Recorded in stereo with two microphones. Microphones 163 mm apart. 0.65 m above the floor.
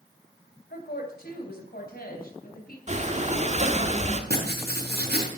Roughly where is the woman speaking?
Left.